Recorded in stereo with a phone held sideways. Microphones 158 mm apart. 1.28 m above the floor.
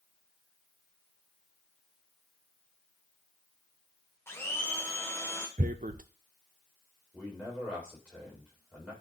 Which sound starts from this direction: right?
Tearing paper, at 5.6 s.